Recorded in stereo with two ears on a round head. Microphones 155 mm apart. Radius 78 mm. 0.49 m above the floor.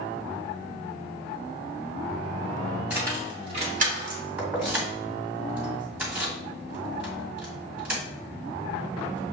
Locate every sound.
2.9 s keys jangling: 10° right (ahead or behind), 1.8 m; by 4.2 s 60° right (ahead or behind), 1.7 m
4.4 s keys jangling: 10° right (ahead or behind), 1.9 m